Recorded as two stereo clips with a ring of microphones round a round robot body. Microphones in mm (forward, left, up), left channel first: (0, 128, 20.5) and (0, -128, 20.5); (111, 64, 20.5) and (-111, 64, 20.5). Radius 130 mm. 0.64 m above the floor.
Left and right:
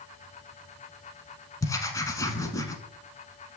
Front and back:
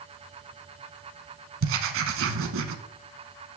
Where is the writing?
165° left, 0.9 m.